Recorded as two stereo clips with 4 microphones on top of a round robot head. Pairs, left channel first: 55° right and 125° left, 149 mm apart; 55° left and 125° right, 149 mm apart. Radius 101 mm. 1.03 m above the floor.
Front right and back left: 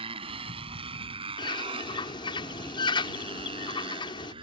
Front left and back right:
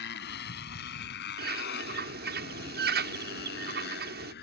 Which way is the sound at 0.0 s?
70° left.